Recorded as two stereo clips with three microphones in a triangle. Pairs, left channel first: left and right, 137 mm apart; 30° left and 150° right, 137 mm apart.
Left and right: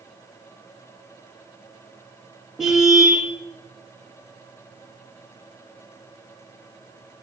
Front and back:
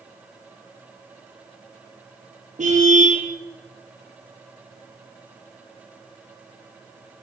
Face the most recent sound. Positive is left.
turn(degrees=-175)